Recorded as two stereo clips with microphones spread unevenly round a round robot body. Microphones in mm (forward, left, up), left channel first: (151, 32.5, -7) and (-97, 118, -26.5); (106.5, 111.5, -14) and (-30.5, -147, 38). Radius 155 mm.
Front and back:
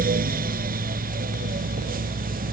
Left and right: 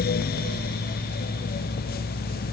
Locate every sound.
Only background noise.